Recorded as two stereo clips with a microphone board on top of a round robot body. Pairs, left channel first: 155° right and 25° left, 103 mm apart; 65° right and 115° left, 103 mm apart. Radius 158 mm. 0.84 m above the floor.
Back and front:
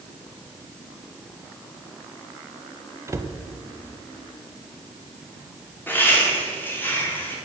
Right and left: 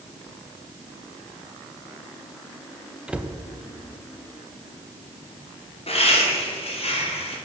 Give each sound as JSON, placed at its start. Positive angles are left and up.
{"t": 3.1, "sound": "a cupboard door", "azimuth_deg": 40, "distance_m": 0.9}
{"t": 5.9, "sound": "laughter", "azimuth_deg": -85, "distance_m": 3.0}